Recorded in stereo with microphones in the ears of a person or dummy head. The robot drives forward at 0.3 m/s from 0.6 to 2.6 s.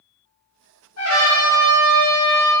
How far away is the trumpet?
About 0.9 m.